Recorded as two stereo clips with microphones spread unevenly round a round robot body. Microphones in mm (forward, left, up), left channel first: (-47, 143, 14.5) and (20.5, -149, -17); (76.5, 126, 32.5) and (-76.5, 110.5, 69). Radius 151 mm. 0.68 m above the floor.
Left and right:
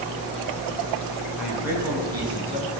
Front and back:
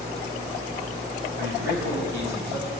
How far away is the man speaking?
About 6.5 m.